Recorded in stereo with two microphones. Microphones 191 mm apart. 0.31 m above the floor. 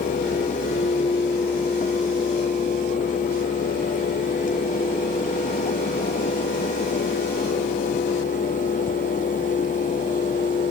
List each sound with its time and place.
Only background noise.